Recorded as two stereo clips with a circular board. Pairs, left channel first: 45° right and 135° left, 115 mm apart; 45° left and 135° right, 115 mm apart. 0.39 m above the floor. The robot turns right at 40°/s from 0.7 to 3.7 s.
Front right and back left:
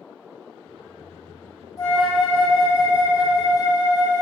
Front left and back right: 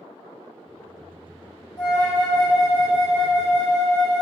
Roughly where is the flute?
Ahead.